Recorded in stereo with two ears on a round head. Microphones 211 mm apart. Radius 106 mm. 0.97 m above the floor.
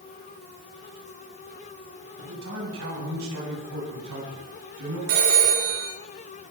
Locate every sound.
2.2 s a man speaking: 55° right (ahead or behind), 7 m; by 5.0 s 70° right (ahead or behind), 8.5 m
5.1 s a phone ringing: 65° right (ahead or behind), 8 m